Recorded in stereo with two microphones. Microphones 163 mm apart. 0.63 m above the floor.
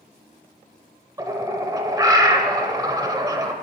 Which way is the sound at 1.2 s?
20° right (ahead or behind).